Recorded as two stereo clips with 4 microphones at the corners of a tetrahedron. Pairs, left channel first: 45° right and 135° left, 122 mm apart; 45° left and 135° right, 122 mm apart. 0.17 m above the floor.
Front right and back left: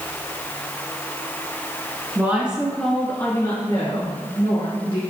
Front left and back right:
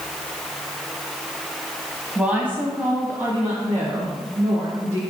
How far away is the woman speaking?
About 1.4 m.